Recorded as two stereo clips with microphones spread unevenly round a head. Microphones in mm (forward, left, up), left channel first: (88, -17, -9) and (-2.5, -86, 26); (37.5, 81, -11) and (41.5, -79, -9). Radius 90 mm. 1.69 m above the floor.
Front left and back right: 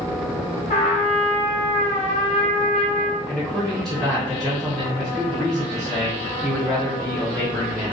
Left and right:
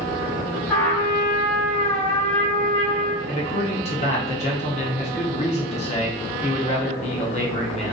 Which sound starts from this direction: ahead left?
A trumpet, at 0.7 s.